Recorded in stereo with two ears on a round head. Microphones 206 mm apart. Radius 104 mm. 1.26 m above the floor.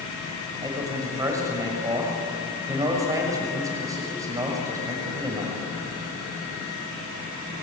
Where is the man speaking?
15° right (ahead or behind), 6.5 m.